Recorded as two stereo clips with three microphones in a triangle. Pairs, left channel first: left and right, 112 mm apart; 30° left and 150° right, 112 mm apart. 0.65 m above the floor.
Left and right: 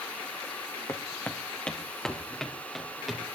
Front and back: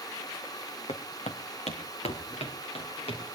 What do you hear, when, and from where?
0.9 s footsteps: 30° left, 1.7 m; by 3.2 s straight ahead, 5 m